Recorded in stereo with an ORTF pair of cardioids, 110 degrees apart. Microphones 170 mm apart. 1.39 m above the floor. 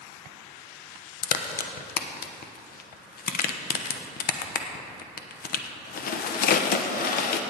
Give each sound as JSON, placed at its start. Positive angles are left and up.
{"t": 1.2, "sound": "a crack", "azimuth_deg": 60, "distance_m": 1.0}